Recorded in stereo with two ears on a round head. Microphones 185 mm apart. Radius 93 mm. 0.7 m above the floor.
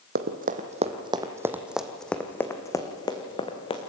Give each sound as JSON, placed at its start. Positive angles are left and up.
{"t": 0.1, "sound": "running footsteps", "side_deg": -50, "distance_m": 1.4}